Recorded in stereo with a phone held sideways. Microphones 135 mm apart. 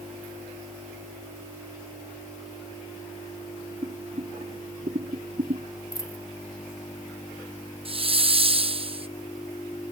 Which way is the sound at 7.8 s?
40° right (ahead or behind).